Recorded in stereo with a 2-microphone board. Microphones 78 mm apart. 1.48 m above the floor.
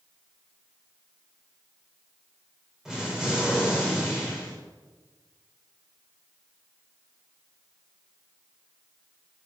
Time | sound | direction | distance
2.9 | an explosion | 5° right (ahead or behind) | 6 m